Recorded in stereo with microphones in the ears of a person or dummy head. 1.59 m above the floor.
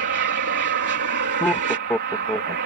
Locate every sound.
0.0 s an aircraft: 55° right (ahead or behind)
1.4 s laughter: 10° left (ahead or behind)